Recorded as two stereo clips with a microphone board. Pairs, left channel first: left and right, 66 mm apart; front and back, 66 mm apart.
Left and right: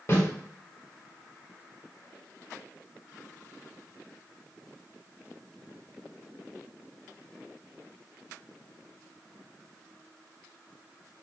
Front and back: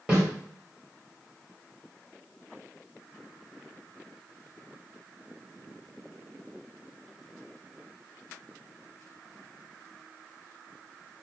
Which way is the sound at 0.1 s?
110° left.